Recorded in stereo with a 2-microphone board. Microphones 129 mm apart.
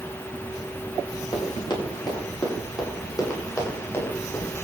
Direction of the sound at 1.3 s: 40° left (ahead or behind).